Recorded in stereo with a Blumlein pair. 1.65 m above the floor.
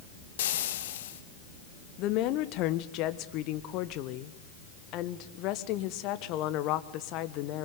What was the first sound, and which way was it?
Frying, 60° left.